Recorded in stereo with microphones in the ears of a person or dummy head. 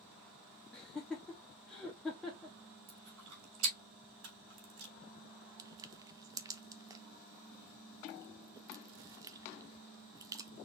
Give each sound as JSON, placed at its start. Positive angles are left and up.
{"t": 0.7, "sound": "laughter", "side_deg": 5, "distance_m": 0.8}
{"t": 2.9, "sound": "chewing", "side_deg": -85, "distance_m": 3.0}
{"t": 4.2, "sound": "a camera shutter", "side_deg": -85, "distance_m": 3.0}
{"t": 5.6, "sound": "crushing", "side_deg": -20, "distance_m": 0.7}